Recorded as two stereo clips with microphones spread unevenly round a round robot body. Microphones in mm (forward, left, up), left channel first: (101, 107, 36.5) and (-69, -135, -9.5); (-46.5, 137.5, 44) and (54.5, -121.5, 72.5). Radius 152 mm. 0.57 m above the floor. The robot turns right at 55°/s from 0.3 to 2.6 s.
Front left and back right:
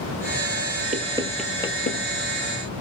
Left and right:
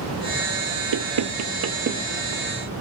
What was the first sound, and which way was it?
Knocking, 65° right.